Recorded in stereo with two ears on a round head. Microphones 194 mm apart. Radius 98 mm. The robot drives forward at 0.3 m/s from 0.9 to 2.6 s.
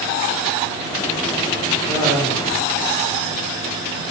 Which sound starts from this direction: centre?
Laughter, at 1.9 s.